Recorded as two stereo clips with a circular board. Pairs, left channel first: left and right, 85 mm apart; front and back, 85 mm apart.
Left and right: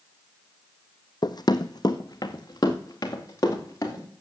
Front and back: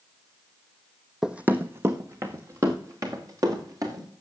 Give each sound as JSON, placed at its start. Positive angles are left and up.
{"t": 1.2, "sound": "running footsteps", "azimuth_deg": 95, "distance_m": 0.7}